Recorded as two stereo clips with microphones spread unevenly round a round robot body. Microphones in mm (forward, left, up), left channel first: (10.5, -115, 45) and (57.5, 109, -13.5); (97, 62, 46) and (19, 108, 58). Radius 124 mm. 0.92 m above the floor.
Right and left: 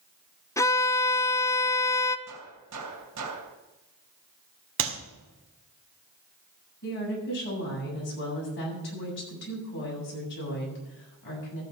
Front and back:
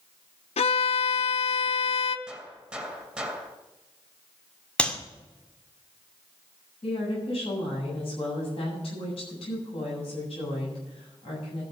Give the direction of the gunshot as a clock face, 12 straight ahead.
10 o'clock.